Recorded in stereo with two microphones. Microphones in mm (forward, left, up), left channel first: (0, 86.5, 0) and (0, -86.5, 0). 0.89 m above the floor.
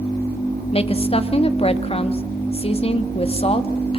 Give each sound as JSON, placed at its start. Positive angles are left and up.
{"t": 0.7, "sound": "a woman speaking", "side_deg": 35, "distance_m": 1.7}